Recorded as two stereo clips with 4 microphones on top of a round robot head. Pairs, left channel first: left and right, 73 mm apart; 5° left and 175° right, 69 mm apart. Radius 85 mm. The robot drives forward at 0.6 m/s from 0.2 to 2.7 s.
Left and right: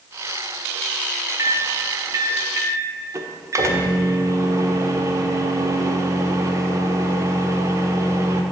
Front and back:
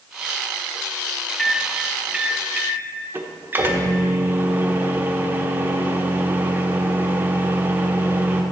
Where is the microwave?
70° right, 1.1 m; by 8.4 s 125° right, 1.2 m.